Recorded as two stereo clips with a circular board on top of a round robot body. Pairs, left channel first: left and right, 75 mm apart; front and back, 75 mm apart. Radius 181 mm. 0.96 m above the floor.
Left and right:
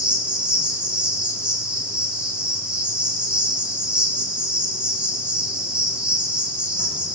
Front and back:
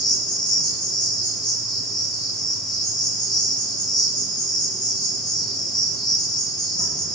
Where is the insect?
15° right, 8.5 m.